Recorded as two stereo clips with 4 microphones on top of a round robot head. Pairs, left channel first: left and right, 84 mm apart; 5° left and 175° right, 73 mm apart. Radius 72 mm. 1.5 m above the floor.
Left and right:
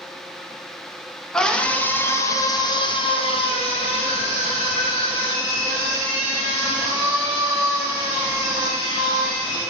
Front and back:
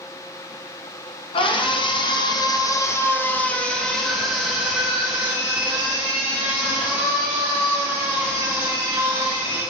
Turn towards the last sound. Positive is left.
turn(degrees=120)